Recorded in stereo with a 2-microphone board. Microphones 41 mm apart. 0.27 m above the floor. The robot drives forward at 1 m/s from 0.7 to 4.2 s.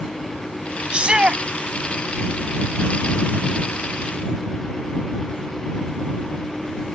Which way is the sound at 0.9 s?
25° right (ahead or behind).